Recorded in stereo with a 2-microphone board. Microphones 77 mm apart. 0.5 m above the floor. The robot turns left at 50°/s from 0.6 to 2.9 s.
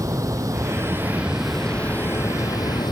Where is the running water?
135° right; by 2.9 s 110° left.